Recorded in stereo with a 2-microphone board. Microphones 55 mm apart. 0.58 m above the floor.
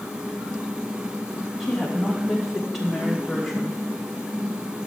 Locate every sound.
1.6 s a woman speaking: centre (ahead or behind), 4 m